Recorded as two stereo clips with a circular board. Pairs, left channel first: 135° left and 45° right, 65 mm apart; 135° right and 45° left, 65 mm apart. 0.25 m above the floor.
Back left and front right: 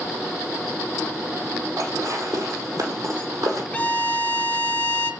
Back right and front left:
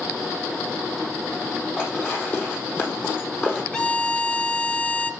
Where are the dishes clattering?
80° right, 5.5 m.